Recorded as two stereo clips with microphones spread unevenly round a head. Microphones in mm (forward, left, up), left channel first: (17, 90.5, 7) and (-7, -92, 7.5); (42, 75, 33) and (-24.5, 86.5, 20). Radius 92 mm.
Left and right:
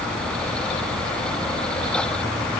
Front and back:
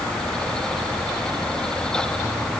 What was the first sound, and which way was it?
Only background noise.